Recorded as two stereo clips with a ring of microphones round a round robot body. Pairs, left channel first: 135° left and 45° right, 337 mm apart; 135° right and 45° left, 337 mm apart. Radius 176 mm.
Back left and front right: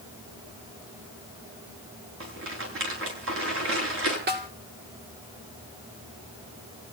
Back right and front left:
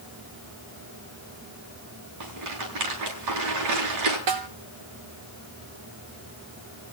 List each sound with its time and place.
2.2 s a rattle: 10° left, 8 m
4.3 s a snare drum: 20° left, 2.5 m